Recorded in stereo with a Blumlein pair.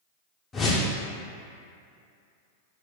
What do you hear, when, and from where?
0.5 s a whoosh: 20° left, 0.7 m